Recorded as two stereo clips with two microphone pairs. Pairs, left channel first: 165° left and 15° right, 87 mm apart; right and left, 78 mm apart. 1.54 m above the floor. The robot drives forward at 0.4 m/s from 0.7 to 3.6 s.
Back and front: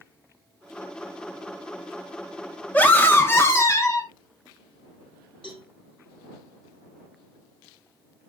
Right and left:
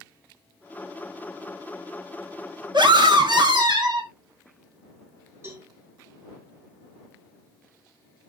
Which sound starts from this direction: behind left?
A cowbell, at 5.4 s.